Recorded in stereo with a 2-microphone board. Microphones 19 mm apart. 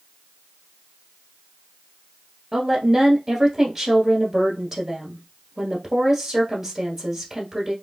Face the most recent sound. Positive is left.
turn(degrees=-30)  # may be behind; listen again after turning